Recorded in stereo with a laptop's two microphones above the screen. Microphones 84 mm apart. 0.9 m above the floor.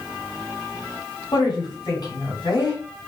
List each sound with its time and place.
1.3 s a woman speaking: 55° left (ahead or behind), 2 m